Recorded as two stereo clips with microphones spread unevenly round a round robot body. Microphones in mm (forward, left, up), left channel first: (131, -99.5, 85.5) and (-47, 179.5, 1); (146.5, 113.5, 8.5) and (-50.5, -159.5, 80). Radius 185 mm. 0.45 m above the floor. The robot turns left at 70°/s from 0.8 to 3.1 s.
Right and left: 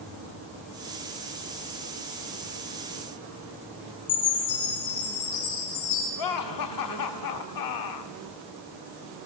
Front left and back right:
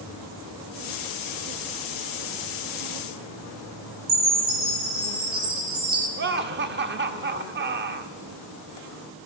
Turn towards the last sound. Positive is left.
turn(degrees=-65)